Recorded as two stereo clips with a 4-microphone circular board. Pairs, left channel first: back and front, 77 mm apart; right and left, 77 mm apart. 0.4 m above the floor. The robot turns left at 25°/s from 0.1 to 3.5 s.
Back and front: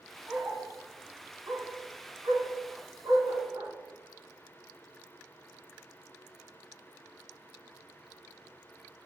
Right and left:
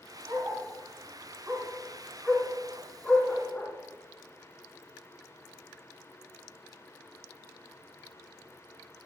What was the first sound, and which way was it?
A dog barking, 65° left.